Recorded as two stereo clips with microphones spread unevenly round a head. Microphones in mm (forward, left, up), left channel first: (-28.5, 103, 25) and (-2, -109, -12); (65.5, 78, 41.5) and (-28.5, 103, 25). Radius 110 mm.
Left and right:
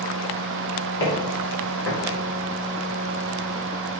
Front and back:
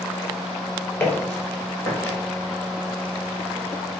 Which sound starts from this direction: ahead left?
Footsteps, at 1.0 s.